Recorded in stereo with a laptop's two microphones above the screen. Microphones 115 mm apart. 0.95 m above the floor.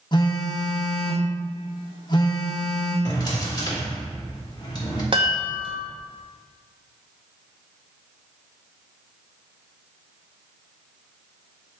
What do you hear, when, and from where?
0.1 s a phone buzzing: 35° left (ahead or behind), 1.0 m
3.0 s a drawer: 35° left (ahead or behind), 1.3 m
5.1 s a chime: 45° right (ahead or behind), 1.1 m